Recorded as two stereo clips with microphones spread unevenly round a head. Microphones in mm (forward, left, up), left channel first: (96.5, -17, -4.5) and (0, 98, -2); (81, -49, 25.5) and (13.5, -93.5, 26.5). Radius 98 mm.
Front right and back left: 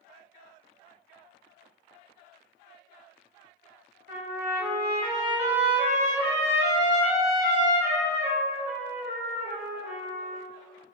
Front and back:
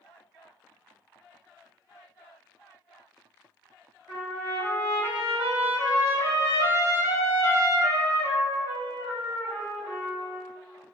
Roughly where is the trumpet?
Left.